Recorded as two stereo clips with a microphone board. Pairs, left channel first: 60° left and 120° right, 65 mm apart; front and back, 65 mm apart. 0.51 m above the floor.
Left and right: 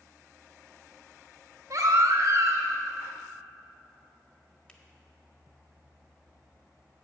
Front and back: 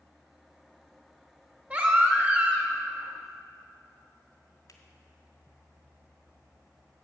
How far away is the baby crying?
About 1.4 m.